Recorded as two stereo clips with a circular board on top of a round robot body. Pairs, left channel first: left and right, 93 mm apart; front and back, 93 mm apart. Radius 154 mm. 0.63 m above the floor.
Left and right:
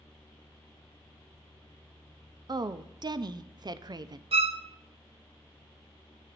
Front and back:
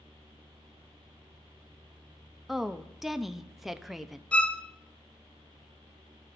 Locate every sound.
2.5 s a woman speaking: 95° right, 0.6 m
4.3 s a violin: 80° right, 0.5 m